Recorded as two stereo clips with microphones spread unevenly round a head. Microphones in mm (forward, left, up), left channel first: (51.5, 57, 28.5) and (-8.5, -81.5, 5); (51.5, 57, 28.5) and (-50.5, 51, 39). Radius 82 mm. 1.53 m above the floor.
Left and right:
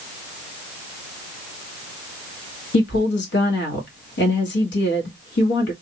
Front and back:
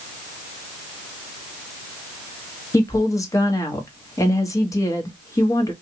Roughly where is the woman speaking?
Ahead left.